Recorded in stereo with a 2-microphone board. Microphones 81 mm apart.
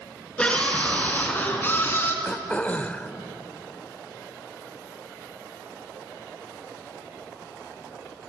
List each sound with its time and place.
0.4 s a scream: 15° left (ahead or behind), 4 m; by 2.1 s 30° left (ahead or behind), 3.5 m
2.2 s throat clearing: 20° left (ahead or behind), 0.7 m